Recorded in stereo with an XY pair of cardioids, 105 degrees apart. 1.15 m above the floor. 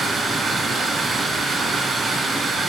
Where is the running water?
40° right, 1.0 m.